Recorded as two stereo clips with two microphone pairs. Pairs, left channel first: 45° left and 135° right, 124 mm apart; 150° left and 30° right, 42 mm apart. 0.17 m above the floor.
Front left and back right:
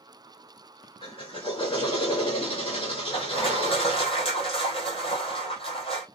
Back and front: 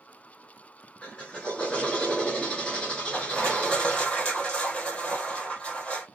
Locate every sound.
1.0 s a drill: 80° left, 1.8 m
3.1 s crushing: 85° left, 2.5 m